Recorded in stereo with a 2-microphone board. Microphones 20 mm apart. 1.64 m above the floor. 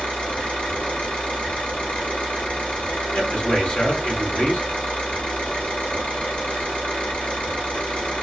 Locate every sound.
0.0 s an engine running: 65° left (ahead or behind), 3 m
3.1 s a man speaking: 75° left (ahead or behind), 1.5 m